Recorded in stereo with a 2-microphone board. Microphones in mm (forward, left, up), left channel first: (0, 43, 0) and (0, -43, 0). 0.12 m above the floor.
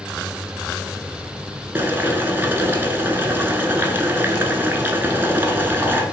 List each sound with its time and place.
1.8 s boiling: 25° right (ahead or behind), 0.5 m